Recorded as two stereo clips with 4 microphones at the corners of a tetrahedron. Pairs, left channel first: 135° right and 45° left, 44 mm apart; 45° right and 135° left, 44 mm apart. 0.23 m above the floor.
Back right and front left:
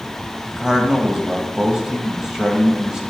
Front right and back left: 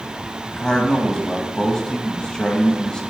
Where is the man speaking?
10° right, 1.0 m.